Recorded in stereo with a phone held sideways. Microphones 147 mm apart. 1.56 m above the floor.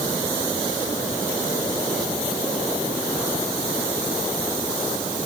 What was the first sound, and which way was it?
Only background noise.